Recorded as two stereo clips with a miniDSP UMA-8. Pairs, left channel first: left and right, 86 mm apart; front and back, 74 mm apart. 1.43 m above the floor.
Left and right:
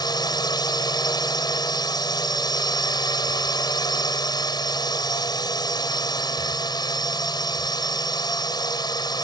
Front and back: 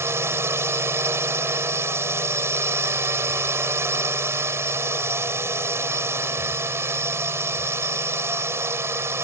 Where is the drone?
125° left.